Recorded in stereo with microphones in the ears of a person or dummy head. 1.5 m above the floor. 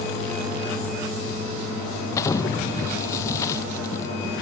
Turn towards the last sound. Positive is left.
turn(degrees=20)  # may be behind; listen again after turning